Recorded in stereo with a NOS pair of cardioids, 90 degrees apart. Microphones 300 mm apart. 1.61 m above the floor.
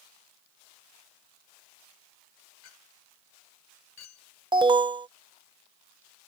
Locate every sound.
2.6 s a clink: 65° left
4.5 s an alarm: 15° right